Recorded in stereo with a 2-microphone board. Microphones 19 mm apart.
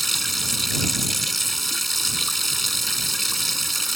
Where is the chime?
No chime in this recording.